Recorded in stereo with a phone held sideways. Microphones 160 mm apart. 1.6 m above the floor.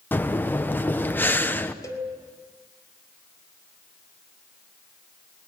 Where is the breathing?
10° left (ahead or behind), 0.9 m.